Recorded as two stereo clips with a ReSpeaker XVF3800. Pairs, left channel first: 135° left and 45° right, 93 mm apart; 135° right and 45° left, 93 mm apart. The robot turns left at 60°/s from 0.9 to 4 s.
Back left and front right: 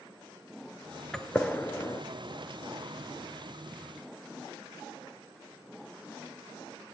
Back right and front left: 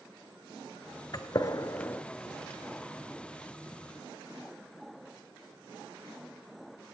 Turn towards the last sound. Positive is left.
turn(degrees=45)